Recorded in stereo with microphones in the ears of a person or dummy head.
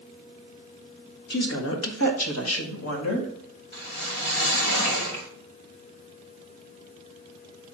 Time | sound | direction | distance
1.3 | a woman speaking | 60° left (ahead or behind) | 1.4 m
3.7 | a whoosh | 50° left (ahead or behind) | 1.5 m